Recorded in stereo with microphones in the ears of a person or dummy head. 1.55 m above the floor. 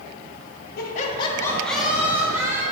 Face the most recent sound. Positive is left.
turn(degrees=-20)  # may be behind; listen again after turning